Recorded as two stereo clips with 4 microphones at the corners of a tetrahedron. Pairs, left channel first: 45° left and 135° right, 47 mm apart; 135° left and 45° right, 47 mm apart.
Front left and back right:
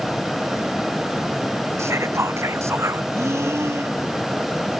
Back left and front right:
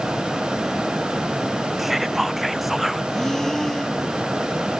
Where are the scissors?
No scissors in this recording.